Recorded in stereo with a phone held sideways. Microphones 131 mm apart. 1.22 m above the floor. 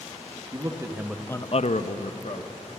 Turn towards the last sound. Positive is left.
turn(degrees=65)  # may be behind; listen again after turning